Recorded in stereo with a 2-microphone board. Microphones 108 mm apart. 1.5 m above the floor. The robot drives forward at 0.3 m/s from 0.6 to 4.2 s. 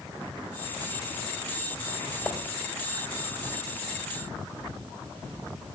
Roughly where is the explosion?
I don't hear an explosion.